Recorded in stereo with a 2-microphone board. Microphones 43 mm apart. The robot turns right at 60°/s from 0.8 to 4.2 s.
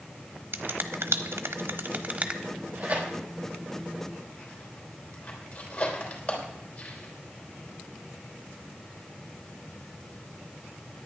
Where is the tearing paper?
70° right (ahead or behind), 3.5 m; by 7.2 s 25° left (ahead or behind), 3.5 m.